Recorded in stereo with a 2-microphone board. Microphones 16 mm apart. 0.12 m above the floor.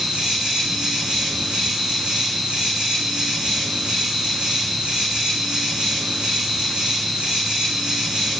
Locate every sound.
0.0 s an insect: 80° right, 4 m